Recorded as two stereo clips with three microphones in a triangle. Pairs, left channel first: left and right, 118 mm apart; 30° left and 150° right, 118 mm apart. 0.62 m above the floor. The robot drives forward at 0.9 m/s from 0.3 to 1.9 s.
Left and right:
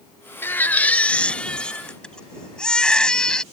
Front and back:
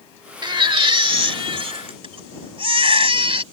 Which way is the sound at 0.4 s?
160° left.